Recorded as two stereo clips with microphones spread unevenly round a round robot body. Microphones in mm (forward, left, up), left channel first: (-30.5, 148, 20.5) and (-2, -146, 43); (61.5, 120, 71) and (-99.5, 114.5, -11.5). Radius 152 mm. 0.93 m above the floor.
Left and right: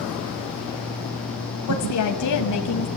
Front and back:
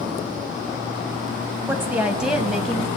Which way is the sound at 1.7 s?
120° left.